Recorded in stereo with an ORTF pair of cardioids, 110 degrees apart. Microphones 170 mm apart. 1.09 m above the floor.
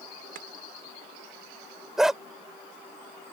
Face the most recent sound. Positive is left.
turn(degrees=0)